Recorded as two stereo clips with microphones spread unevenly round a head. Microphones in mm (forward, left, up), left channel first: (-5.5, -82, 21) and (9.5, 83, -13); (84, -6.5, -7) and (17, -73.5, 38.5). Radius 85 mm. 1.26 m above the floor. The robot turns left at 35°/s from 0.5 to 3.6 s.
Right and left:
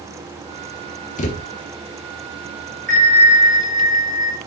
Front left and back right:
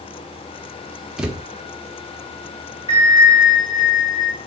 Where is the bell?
45° left, 2 m; by 4.4 s 15° left, 2 m.